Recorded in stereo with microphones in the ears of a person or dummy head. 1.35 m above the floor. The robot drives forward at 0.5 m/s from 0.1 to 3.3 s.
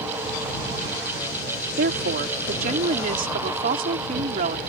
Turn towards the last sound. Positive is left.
turn(degrees=-50)  # may be behind; listen again after turning